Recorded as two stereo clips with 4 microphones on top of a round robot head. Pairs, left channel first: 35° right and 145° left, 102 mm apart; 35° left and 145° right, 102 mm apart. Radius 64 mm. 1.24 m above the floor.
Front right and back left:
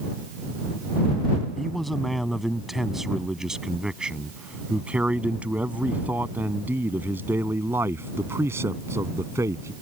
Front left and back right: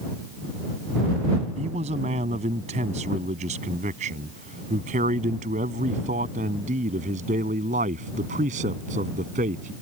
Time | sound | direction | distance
1.6 | a man speaking | 120° right | ?